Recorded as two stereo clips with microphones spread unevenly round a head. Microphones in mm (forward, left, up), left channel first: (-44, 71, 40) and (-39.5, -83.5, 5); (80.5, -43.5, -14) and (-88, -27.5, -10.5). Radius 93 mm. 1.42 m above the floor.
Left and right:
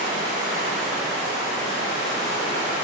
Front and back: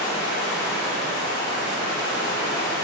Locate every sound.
0.0 s running water: 25° right, 2 m